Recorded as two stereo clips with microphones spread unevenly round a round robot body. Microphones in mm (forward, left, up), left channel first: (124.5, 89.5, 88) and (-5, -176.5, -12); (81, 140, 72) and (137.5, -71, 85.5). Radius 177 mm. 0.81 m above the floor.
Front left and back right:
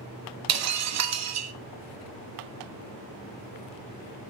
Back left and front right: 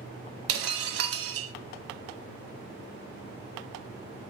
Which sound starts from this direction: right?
Breaking glass, at 0.5 s.